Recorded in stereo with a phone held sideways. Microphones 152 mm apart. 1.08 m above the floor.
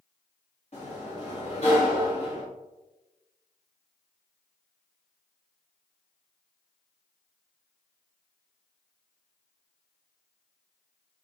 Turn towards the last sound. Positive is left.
turn(degrees=45)  # may be behind; listen again after turning